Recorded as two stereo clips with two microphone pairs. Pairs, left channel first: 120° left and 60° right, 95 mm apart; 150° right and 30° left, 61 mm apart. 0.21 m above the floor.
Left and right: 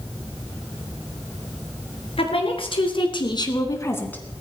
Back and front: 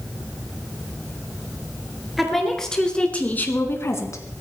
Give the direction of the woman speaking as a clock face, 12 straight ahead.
8 o'clock.